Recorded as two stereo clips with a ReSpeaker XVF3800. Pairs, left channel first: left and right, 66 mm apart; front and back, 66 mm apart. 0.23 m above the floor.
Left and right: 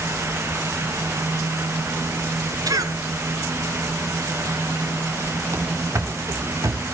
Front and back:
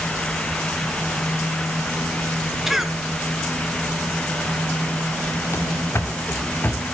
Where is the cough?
95° right, 2.5 m.